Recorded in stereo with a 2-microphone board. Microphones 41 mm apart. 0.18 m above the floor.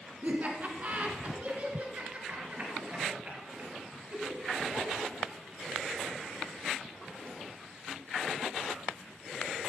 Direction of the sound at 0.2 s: 40° right (ahead or behind).